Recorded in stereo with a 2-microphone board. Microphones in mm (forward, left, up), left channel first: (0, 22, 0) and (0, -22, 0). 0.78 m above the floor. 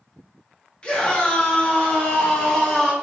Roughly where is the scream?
Left.